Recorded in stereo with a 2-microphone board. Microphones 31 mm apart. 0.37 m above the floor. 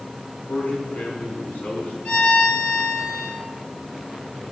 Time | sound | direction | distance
0.5 | a man speaking | 70° left (ahead or behind) | 4.5 m
2.0 | a violin | 40° left (ahead or behind) | 2.5 m